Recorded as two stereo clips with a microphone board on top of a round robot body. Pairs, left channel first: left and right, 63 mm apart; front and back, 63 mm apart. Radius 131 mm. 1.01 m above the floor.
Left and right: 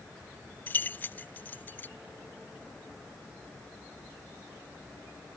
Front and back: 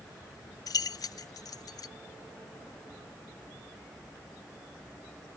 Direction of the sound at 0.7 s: 25° left.